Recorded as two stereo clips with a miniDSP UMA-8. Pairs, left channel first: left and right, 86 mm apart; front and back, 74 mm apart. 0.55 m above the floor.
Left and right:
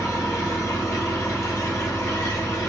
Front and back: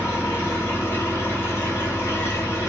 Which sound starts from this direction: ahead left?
An engine running, at 0.0 s.